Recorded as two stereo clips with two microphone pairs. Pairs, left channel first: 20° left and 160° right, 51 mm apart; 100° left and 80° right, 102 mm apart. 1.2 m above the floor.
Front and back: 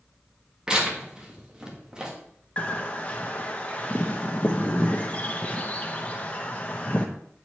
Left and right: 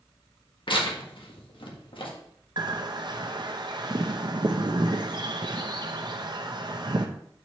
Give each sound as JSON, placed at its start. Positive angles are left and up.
{"t": 0.7, "sound": "tearing paper", "azimuth_deg": 130, "distance_m": 1.5}
{"t": 2.6, "sound": "a bird", "azimuth_deg": -40, "distance_m": 0.7}